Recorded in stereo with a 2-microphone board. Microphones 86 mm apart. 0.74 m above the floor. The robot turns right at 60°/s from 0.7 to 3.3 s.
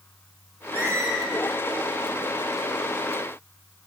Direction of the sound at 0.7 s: 20° right (ahead or behind).